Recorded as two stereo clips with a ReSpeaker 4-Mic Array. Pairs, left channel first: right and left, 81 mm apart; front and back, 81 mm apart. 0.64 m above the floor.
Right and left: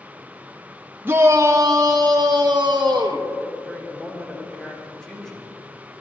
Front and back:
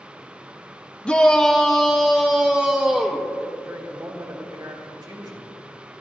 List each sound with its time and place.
1.1 s a shout: 65° left, 0.6 m; by 3.3 s 105° left, 1.5 m
3.6 s a woman speaking: 170° right, 2.5 m